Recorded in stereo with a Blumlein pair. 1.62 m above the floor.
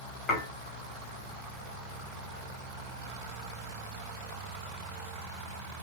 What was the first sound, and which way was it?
Dishes clattering, 15° left.